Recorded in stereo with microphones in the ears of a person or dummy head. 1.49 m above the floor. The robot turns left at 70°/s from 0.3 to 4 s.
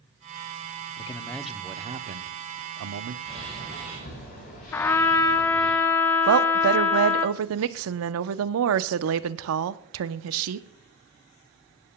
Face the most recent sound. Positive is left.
turn(degrees=-70)  # may be behind; listen again after turning